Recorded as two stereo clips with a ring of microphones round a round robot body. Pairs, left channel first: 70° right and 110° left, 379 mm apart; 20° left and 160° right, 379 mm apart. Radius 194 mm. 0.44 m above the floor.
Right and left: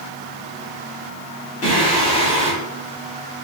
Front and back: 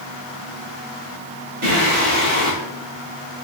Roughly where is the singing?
Behind right.